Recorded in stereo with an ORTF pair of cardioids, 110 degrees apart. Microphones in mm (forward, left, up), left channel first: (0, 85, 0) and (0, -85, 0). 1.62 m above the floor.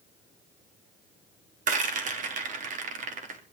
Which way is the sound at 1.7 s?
50° right.